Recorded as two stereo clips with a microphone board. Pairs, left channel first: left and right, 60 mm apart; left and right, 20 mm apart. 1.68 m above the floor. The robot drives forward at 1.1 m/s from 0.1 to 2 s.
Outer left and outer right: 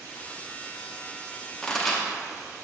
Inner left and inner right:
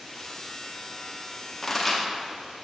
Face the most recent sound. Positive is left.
turn(degrees=5)  # may be behind; listen again after turning